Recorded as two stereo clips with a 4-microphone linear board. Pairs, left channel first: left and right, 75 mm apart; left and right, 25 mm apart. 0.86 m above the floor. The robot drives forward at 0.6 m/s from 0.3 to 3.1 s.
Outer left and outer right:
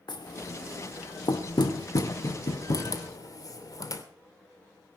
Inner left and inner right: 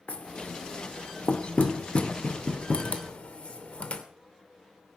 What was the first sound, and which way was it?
Knocking, 80° left.